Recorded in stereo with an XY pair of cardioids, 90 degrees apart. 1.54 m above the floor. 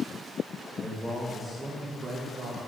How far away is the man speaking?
About 2 m.